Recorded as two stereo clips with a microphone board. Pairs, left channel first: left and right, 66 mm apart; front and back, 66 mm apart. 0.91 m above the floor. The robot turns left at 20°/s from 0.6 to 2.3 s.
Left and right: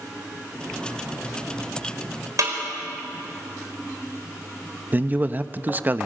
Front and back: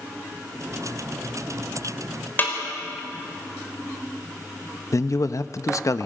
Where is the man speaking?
30° right, 0.7 m.